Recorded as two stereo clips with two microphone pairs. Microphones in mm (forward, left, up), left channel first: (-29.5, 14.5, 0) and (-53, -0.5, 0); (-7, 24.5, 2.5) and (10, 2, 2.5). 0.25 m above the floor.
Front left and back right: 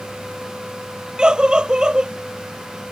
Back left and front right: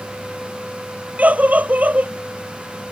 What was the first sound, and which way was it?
A scream, 85° right.